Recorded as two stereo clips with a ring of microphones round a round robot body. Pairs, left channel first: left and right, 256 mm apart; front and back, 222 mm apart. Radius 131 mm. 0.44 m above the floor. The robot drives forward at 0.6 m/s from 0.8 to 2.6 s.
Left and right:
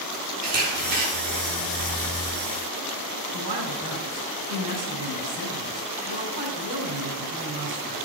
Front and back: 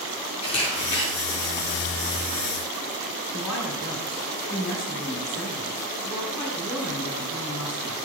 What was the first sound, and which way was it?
A camera shutter, 70° right.